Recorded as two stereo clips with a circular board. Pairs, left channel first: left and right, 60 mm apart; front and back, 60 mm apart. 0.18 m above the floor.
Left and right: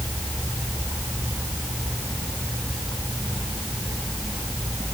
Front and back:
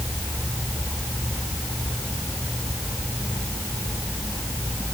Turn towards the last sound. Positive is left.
No sound to turn to.